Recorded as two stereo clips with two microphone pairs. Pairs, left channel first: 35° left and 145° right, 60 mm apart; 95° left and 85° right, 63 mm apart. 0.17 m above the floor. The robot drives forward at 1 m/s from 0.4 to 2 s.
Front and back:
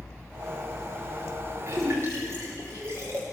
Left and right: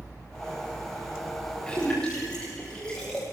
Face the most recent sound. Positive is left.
turn(degrees=175)